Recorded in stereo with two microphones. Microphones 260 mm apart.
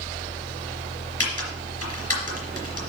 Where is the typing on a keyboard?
65° left (ahead or behind), 3.5 m.